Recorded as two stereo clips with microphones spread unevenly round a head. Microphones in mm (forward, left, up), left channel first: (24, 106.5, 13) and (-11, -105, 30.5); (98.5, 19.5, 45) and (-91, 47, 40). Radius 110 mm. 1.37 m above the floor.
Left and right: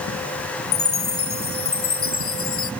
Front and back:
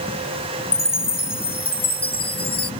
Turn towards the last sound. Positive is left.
turn(degrees=55)